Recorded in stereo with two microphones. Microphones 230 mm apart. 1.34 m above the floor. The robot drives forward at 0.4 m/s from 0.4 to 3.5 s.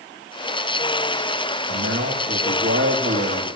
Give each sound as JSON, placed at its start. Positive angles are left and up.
{"t": 1.7, "sound": "a man speaking", "side_deg": -70, "distance_m": 2.5}